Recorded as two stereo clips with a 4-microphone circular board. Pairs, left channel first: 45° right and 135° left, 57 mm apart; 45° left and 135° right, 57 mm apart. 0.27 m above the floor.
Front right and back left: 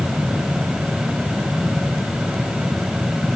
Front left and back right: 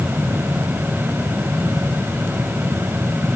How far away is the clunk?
No clunk in this recording.